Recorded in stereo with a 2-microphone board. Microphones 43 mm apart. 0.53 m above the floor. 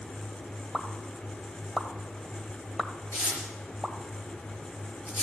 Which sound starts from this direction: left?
Tearing paper, at 3.1 s.